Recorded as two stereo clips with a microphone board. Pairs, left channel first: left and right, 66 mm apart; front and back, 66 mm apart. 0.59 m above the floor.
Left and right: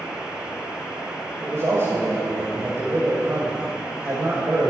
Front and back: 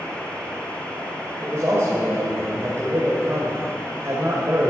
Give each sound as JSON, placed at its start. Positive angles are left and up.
{"t": 1.4, "sound": "a man speaking", "azimuth_deg": -135, "distance_m": 2.5}